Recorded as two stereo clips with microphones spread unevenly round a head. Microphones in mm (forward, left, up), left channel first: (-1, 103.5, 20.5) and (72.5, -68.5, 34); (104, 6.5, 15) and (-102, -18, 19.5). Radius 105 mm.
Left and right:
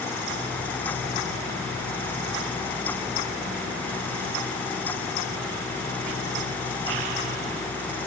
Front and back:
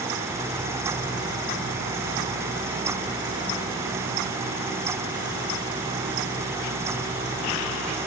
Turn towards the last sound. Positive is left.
No sound to turn to.